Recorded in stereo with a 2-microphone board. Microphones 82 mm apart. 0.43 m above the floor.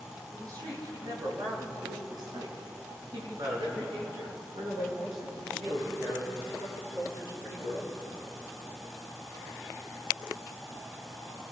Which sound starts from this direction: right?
A woman speaking, at 0.3 s.